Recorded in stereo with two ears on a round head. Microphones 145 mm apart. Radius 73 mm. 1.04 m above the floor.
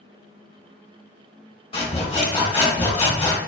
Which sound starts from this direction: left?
Sawing, at 1.7 s.